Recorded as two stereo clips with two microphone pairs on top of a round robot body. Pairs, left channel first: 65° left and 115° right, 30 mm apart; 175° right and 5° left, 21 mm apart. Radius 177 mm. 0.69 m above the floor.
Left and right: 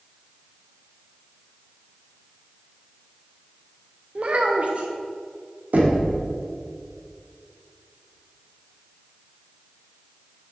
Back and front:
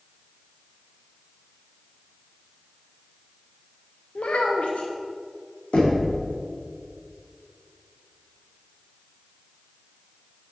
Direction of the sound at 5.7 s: 135° right.